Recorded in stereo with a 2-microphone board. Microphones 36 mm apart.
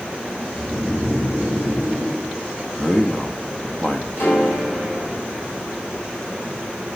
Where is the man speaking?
30° left (ahead or behind), 1.2 m.